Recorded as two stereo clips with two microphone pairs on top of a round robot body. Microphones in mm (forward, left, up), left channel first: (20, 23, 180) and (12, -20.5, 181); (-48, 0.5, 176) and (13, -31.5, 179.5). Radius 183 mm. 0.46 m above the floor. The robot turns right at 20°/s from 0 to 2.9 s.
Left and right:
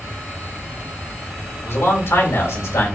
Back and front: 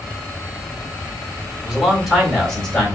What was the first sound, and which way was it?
A man speaking, 50° left.